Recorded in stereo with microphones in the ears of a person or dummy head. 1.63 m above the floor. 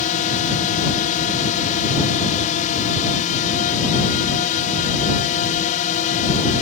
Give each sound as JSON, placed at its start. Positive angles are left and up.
{"t": 0.0, "sound": "a drone", "side_deg": 40}